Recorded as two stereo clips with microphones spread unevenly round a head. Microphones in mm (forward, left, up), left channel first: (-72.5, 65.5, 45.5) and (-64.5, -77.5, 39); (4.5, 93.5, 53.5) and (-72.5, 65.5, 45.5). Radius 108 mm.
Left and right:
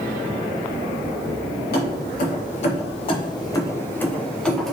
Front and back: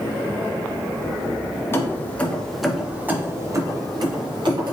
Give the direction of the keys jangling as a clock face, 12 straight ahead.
10 o'clock.